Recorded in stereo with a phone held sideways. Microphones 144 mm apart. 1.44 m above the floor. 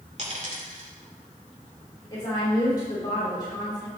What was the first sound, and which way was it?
A dropped coin, 50° right (ahead or behind).